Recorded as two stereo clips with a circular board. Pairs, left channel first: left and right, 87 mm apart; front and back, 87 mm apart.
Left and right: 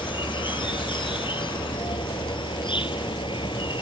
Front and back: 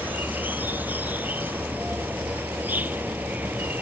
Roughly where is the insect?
Left.